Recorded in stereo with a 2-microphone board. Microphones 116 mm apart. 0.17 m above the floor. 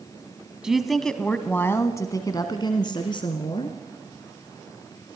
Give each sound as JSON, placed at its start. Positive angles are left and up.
{"t": 0.6, "sound": "a woman speaking", "side_deg": -5, "distance_m": 1.0}